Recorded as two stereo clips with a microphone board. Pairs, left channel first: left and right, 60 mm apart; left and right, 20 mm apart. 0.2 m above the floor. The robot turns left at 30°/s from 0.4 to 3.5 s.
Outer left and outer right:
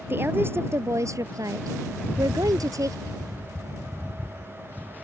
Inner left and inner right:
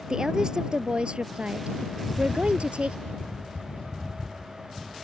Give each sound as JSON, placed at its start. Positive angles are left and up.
{"t": 0.1, "sound": "a woman speaking", "azimuth_deg": -40}
{"t": 2.0, "sound": "a rattle", "azimuth_deg": 90}